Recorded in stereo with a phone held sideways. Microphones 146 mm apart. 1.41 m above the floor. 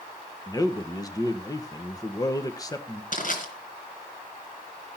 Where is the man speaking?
25° left (ahead or behind), 0.9 m.